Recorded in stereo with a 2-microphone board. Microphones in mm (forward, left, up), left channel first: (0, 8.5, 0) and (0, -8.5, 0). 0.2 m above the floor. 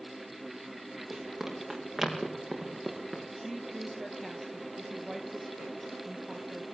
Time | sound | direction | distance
1.1 | running footsteps | 15° right (ahead or behind) | 7.5 m
3.4 | a woman speaking | centre (ahead or behind) | 4 m